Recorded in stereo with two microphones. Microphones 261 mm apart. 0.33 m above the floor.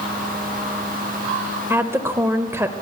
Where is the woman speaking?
10° right (ahead or behind), 1.1 m.